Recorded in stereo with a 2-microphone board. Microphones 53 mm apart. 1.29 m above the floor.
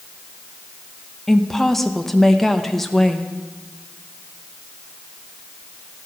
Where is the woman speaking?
5° left (ahead or behind), 0.9 m.